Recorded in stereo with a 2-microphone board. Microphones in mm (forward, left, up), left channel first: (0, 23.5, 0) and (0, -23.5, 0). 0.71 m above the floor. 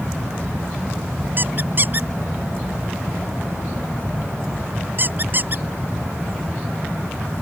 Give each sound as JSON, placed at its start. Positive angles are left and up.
{"t": 1.4, "sound": "a squeak", "side_deg": -40}